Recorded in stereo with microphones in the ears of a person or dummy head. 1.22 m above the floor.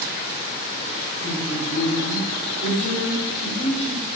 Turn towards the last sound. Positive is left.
turn(degrees=50)  # may be behind; listen again after turning